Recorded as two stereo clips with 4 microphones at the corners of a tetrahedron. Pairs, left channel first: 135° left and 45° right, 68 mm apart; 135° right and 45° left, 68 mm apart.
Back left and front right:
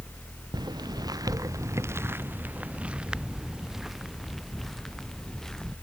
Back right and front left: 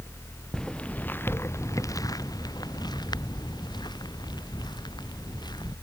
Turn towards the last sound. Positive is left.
turn(degrees=-140)